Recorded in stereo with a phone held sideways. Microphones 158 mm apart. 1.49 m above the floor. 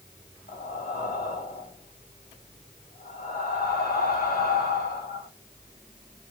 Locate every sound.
0.5 s breathing: 65° left (ahead or behind), 1.7 m